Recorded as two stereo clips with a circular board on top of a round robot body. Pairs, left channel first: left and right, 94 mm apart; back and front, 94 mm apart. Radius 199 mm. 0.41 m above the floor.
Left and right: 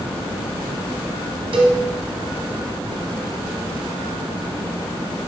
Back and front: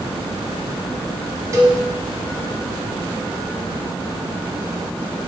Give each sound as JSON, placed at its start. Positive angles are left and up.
{"t": 1.5, "sound": "a cowbell", "azimuth_deg": -60, "distance_m": 0.9}